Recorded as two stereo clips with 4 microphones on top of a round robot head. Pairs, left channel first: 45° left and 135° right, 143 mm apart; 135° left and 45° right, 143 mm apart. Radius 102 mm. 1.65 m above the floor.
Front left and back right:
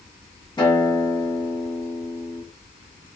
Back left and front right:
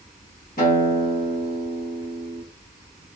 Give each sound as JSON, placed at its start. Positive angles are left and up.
{"t": 0.6, "sound": "a guitar", "azimuth_deg": 105, "distance_m": 1.9}